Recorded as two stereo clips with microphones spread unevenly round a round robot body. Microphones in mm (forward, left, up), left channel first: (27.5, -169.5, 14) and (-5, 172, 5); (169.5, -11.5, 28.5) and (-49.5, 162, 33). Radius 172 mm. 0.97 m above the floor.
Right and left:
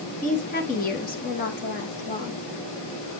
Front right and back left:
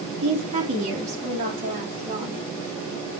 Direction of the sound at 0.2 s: 150° right.